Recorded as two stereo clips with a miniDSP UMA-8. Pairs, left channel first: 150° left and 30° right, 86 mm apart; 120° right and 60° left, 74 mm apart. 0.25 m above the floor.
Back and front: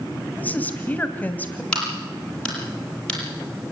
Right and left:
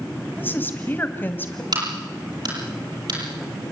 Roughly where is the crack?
Left.